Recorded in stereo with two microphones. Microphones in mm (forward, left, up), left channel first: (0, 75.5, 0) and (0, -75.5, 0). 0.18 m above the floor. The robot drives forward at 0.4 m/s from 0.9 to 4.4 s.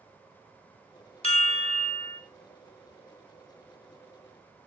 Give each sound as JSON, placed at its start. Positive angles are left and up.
{"t": 1.2, "sound": "a chime", "side_deg": 45, "distance_m": 0.7}